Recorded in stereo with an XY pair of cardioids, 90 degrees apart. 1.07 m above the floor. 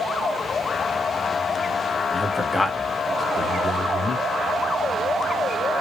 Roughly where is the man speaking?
Ahead.